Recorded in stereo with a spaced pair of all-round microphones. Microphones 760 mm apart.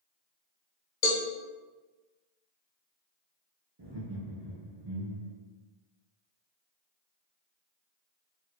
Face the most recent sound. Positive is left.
turn(degrees=-35)  # may be behind; listen again after turning